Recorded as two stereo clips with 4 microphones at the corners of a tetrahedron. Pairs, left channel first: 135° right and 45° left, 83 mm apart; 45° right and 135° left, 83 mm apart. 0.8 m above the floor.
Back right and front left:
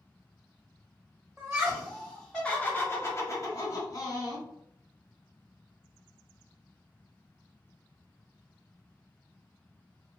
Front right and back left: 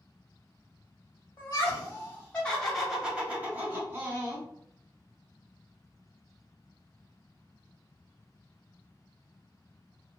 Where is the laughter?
15° right, 1.0 m; by 4.5 s 170° right, 1.5 m.